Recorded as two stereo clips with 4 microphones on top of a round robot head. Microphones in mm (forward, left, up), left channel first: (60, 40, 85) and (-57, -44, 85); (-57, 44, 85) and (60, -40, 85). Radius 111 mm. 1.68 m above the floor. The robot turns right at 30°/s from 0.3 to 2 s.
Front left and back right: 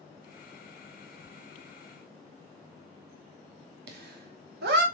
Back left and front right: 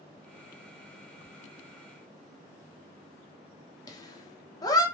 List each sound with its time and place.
1.2 s ticking: 50° right, 2.0 m
3.9 s laughter: 150° right, 0.9 m